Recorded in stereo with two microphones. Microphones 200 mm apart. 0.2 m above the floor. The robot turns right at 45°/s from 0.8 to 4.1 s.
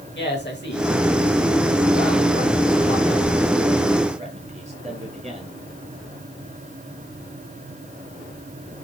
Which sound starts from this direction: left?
A man speaking, at 0.1 s.